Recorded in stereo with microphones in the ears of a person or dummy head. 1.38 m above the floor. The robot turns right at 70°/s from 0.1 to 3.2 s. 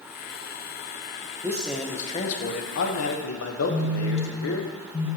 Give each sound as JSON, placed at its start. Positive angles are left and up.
{"t": 1.4, "sound": "a man speaking", "azimuth_deg": -20, "distance_m": 0.9}
{"t": 3.7, "sound": "a phone buzzing", "side_deg": 30, "distance_m": 2.5}